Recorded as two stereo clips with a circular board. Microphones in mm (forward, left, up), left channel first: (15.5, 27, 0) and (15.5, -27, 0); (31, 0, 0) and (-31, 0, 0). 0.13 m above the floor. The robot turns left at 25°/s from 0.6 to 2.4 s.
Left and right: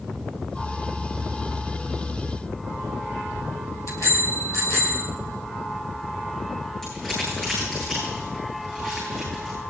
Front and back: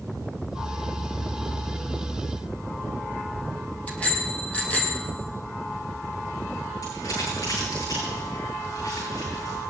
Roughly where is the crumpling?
Ahead.